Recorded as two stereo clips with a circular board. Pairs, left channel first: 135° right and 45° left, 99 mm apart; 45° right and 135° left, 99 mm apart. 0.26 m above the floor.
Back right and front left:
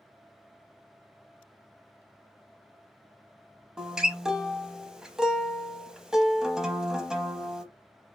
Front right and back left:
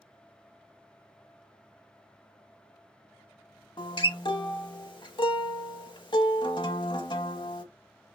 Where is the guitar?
35° right, 0.6 m.